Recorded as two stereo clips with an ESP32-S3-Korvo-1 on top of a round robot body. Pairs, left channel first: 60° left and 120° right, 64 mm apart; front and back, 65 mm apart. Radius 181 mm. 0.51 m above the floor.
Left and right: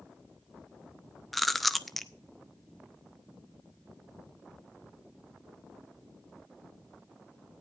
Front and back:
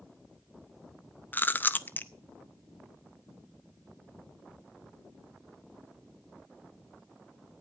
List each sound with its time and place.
1.3 s chewing: 30° right, 1.1 m